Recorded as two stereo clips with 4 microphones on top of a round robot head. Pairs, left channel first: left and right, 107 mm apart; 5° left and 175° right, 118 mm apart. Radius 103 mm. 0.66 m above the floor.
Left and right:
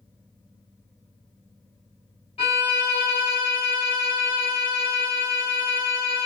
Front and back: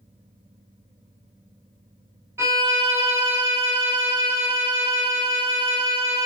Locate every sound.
2.4 s a violin: 115° left, 1.5 m